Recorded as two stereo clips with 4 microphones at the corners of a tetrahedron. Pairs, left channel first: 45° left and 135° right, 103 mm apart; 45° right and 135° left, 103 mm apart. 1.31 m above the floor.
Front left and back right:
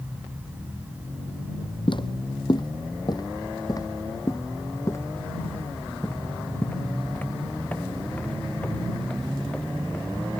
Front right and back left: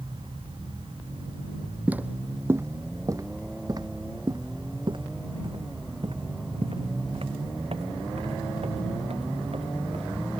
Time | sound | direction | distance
1.9 | footsteps | 60° left | ?